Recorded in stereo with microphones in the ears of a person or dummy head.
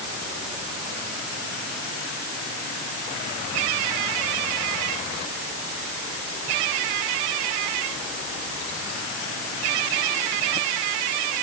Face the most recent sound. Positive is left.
No sound to turn to.